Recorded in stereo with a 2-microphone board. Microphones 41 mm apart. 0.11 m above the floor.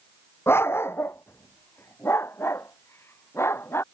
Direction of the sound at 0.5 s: 75° left (ahead or behind).